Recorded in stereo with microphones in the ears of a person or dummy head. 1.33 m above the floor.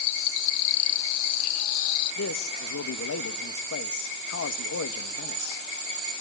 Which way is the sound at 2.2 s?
80° left.